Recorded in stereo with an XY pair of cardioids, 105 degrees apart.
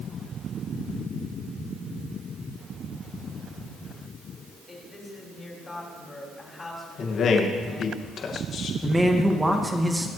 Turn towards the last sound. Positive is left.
turn(degrees=-15)